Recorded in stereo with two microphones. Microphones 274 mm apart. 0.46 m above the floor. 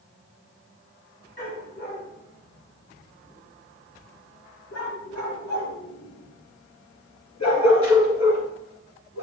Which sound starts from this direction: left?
A dog barking, at 1.4 s.